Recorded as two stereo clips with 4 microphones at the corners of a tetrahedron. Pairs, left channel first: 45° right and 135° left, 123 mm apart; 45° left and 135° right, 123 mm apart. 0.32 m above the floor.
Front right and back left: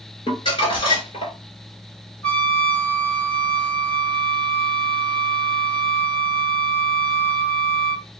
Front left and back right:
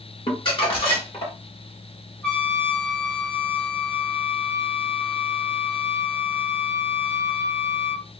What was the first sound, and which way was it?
Crumpling, straight ahead.